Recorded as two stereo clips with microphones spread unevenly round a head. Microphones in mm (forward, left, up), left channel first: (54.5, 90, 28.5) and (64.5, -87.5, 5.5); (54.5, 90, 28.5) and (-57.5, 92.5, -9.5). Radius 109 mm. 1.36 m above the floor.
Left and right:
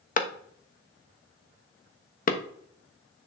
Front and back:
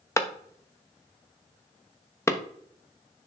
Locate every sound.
0.2 s a clap: 55° left, 1.1 m